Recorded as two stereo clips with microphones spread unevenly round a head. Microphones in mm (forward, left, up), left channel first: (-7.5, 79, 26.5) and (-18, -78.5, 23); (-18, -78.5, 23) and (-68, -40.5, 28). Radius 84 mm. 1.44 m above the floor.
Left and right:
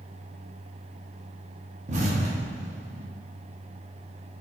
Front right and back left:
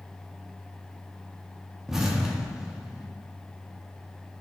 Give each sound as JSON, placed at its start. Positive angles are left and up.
{"t": 1.9, "sound": "an explosion", "azimuth_deg": -135, "distance_m": 0.9}